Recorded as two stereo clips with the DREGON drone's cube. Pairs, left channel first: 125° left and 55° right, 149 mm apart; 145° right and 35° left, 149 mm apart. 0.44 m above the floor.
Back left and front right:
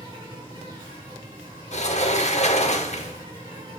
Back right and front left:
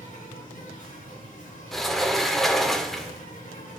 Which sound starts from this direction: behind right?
An insect, at 0.0 s.